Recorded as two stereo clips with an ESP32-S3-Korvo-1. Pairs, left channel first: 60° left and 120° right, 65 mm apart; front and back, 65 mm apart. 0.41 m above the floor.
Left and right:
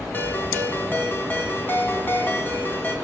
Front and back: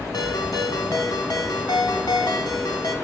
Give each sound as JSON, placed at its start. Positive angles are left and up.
{"t": 0.1, "sound": "a ringtone", "azimuth_deg": 0, "distance_m": 1.6}